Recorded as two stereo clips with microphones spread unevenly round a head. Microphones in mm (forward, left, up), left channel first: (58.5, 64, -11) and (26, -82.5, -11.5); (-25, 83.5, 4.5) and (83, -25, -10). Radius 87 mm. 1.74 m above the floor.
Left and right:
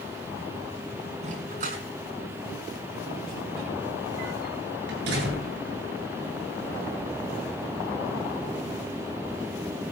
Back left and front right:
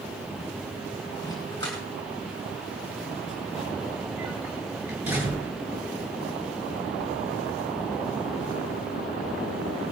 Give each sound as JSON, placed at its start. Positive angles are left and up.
{"t": 1.2, "sound": "a dog barking", "azimuth_deg": -150, "distance_m": 5.5}